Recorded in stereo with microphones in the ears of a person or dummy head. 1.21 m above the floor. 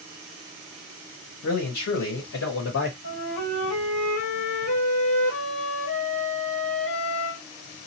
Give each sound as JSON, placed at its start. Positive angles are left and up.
{"t": 1.4, "sound": "a man speaking", "side_deg": 65, "distance_m": 1.3}
{"t": 3.0, "sound": "a flute", "side_deg": 70, "distance_m": 1.8}